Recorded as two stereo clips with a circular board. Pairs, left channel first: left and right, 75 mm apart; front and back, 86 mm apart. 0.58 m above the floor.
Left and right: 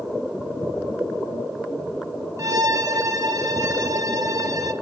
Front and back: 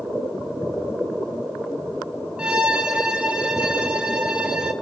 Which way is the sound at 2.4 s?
105° right.